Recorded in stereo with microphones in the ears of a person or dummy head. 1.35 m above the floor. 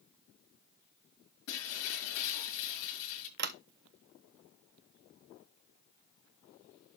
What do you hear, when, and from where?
1.5 s breaking glass: 80° left, 6.5 m
3.4 s a sliding door: 55° right (ahead or behind), 0.8 m